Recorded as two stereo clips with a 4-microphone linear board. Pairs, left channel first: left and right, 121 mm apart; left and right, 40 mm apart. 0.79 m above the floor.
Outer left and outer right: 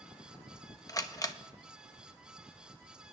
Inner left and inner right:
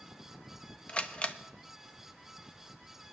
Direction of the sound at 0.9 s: 30° left (ahead or behind).